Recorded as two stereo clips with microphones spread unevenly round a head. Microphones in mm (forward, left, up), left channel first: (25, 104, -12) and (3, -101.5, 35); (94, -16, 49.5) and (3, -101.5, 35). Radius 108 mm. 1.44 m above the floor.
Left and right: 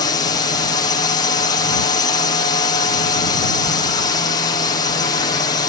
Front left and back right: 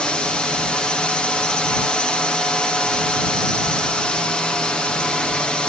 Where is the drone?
130° left.